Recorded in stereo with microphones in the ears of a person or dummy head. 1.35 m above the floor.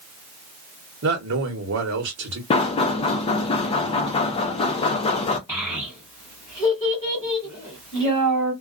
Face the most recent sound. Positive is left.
turn(degrees=10)  # may be behind; listen again after turning